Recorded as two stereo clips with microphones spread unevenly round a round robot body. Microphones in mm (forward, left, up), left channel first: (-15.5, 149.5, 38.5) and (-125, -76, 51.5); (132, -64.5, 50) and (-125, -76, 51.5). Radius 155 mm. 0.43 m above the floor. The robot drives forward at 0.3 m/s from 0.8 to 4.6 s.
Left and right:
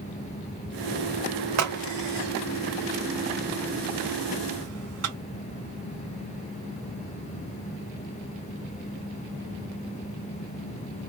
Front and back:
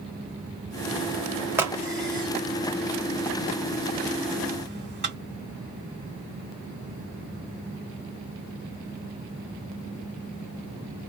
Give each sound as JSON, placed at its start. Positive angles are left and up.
{"t": 1.6, "sound": "a crack", "azimuth_deg": -95, "distance_m": 1.3}